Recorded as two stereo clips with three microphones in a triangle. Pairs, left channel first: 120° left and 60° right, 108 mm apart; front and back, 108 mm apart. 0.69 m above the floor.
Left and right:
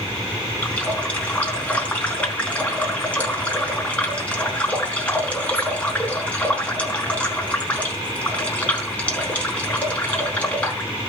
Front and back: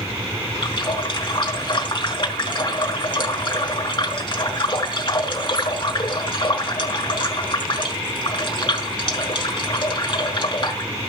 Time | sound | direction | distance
0.6 | a running tap | 45° left | 4 m